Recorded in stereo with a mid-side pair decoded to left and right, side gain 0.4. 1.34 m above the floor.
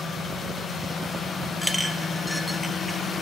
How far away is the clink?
About 0.5 m.